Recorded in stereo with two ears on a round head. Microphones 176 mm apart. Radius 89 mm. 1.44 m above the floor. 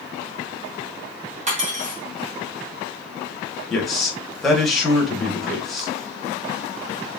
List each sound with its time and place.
1.5 s cutlery clinking: 40° right (ahead or behind), 1.3 m
3.7 s a man speaking: centre (ahead or behind), 1.4 m